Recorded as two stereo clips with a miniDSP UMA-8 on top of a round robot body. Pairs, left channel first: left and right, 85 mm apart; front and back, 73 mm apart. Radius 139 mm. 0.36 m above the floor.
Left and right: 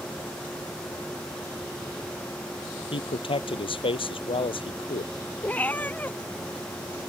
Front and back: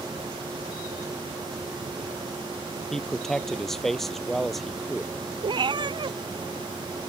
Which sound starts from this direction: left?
A man speaking, at 2.9 s.